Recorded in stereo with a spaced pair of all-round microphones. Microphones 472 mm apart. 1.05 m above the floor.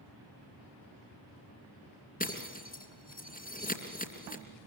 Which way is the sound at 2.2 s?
20° left (ahead or behind).